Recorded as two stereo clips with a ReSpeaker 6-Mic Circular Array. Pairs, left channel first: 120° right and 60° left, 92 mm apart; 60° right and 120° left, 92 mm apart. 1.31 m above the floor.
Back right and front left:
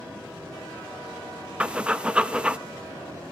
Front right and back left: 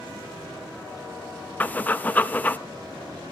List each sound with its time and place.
1.6 s breathing: 5° right, 0.6 m